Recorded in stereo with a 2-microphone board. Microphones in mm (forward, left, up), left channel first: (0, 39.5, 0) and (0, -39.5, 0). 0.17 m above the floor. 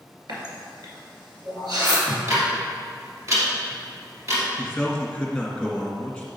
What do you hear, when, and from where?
0.3 s a running tap: 65° right (ahead or behind), 2.0 m
2.1 s ticking: 40° right (ahead or behind), 2.5 m
4.6 s a man speaking: 5° left (ahead or behind), 1.9 m